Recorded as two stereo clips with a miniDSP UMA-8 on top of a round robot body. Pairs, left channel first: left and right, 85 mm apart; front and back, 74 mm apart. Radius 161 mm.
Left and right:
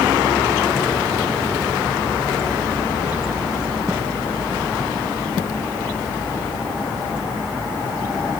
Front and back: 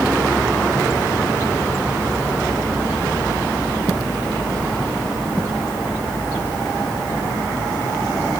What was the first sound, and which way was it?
Only background noise.